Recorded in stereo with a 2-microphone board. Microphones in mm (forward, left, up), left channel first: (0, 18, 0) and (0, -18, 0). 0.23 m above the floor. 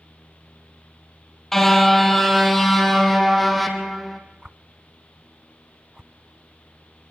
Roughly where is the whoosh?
Centre.